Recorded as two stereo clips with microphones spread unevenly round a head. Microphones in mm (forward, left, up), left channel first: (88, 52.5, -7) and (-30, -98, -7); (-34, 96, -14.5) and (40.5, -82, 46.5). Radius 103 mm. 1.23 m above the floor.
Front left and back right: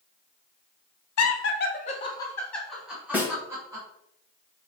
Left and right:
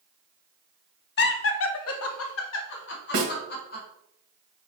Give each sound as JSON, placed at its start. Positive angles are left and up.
{"t": 1.2, "sound": "laughter", "azimuth_deg": 75, "distance_m": 0.8}
{"t": 3.1, "sound": "a snare drum", "azimuth_deg": -45, "distance_m": 1.2}